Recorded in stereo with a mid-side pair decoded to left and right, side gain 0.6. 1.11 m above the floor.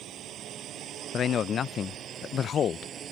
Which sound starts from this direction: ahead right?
A drone, at 0.0 s.